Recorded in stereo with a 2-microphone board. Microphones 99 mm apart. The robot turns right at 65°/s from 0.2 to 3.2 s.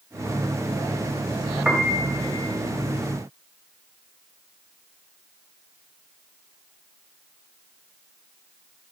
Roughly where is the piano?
Behind.